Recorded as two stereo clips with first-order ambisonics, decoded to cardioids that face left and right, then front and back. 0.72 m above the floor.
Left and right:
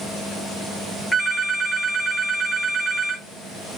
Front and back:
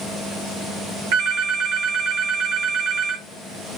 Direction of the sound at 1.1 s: 175° right.